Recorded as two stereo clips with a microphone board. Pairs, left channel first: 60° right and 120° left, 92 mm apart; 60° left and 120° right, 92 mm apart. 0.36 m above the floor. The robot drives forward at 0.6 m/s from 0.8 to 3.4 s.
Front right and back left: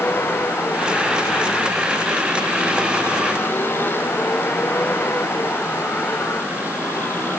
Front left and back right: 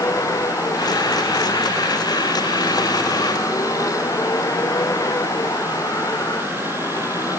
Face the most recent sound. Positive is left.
turn(degrees=5)